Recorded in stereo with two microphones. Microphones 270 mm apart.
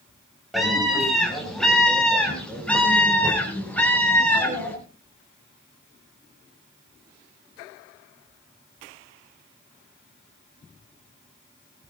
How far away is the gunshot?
I don't hear a gunshot.